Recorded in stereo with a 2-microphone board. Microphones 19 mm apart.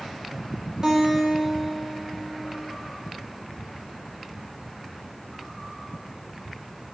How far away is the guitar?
About 1.5 m.